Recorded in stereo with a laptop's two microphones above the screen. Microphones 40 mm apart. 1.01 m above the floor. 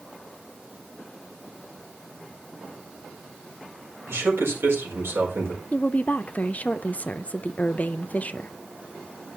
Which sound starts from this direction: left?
A woman speaking, at 5.7 s.